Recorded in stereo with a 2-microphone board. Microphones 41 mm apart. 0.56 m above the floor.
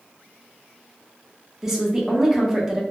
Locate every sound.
1.6 s a woman speaking: 10° right (ahead or behind), 0.7 m